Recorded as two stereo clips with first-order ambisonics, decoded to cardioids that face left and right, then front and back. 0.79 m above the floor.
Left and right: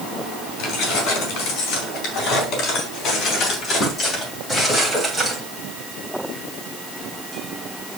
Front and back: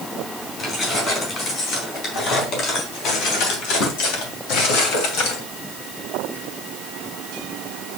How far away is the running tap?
I don't hear a running tap.